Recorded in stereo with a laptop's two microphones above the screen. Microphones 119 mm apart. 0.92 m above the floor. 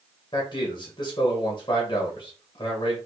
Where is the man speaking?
40° left (ahead or behind), 1.1 m.